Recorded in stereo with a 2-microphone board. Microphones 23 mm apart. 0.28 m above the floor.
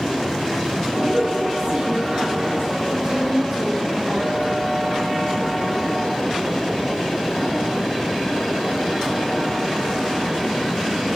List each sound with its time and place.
0.9 s a woman speaking: 40° right (ahead or behind), 1.9 m; by 4.5 s 60° right (ahead or behind), 7.5 m